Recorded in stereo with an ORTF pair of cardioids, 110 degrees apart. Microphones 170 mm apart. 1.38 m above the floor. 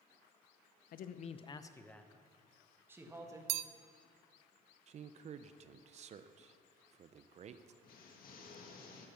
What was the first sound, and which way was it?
A man speaking, 60° left.